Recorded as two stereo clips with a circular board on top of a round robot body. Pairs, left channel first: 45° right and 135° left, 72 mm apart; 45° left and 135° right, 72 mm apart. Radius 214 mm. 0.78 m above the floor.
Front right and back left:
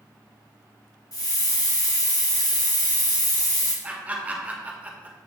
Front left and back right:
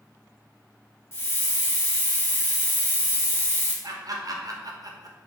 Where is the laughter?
160° right, 1.5 m.